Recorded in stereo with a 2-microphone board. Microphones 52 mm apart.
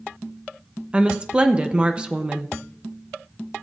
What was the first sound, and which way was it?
A woman speaking, 20° right (ahead or behind).